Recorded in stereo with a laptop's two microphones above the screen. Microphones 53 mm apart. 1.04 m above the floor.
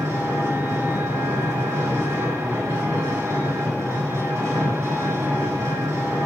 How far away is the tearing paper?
I don't hear tearing paper.